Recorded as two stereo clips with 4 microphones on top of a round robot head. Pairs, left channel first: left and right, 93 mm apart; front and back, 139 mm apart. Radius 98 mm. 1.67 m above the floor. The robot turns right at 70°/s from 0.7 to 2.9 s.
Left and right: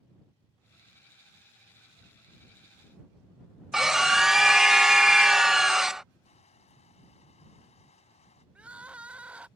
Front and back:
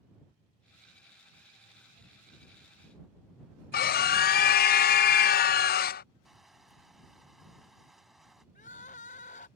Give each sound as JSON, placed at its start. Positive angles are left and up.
{"t": 3.7, "sound": "a scream", "azimuth_deg": -5}
{"t": 6.2, "sound": "crushing", "azimuth_deg": 95}
{"t": 8.6, "sound": "crying", "azimuth_deg": -20}